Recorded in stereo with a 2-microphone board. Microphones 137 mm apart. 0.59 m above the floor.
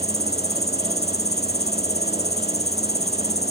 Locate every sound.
0.0 s an insect: 55° left (ahead or behind)